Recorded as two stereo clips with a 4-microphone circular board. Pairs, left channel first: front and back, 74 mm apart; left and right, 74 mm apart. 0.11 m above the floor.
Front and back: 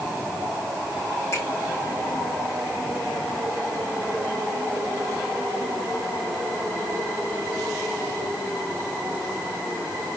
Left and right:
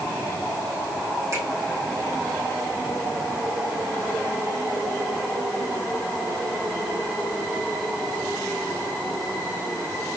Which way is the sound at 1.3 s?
45° right.